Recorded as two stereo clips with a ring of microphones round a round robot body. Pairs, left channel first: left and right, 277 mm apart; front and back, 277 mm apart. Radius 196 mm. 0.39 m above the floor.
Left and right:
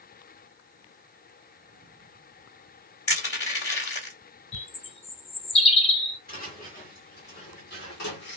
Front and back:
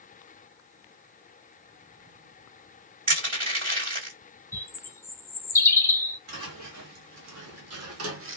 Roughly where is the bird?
Ahead left.